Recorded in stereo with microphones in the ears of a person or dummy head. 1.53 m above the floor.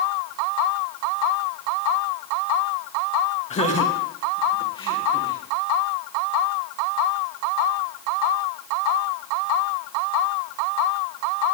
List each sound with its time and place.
3.5 s laughter: 40° left (ahead or behind), 2.5 m; by 5.4 s 30° left (ahead or behind), 4.5 m